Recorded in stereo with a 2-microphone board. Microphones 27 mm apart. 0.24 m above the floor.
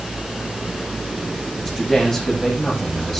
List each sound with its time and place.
1.6 s a man speaking: 10° left (ahead or behind), 9.5 m